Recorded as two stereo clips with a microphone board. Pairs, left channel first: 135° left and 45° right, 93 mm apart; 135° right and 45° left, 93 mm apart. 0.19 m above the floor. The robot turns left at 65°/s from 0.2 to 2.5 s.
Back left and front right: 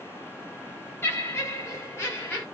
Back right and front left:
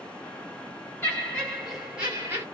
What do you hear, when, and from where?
1.0 s laughter: 175° left, 1.8 m; by 2.4 s 85° left, 1.8 m